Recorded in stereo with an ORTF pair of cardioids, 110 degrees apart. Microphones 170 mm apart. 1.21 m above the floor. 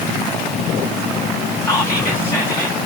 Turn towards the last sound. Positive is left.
turn(degrees=15)